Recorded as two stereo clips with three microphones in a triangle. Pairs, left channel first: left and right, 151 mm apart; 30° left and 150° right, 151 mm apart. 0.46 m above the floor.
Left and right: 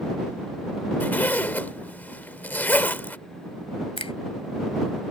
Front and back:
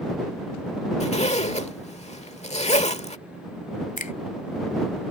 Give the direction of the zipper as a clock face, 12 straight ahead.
11 o'clock.